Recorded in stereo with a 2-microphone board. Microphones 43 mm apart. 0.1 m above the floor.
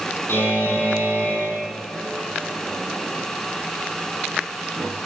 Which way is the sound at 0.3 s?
65° left (ahead or behind).